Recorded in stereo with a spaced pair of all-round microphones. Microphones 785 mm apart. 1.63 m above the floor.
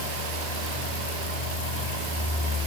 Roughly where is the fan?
Left.